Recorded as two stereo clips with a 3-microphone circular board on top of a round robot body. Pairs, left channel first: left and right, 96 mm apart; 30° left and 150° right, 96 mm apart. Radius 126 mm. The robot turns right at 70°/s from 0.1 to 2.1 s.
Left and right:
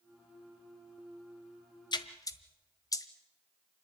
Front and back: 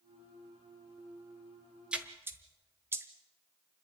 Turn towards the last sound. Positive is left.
turn(degrees=145)